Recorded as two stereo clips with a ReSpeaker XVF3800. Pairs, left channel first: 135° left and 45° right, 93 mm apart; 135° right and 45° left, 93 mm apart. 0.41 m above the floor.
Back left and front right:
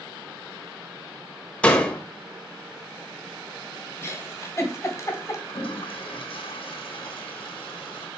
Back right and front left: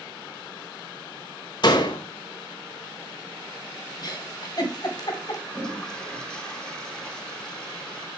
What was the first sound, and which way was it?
A door slam, 150° right.